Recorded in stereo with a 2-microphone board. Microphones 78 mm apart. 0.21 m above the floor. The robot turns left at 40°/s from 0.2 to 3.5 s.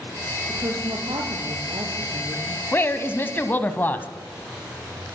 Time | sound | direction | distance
0.5 | a woman speaking | 50° right | 4.5 m
2.7 | a woman speaking | 25° left (ahead or behind) | 1.2 m